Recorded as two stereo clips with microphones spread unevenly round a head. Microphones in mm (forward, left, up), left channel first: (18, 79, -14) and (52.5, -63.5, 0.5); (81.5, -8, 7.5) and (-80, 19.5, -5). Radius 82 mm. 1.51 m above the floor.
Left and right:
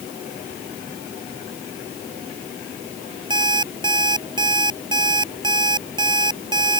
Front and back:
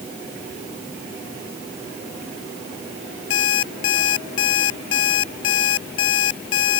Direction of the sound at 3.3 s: 15° right.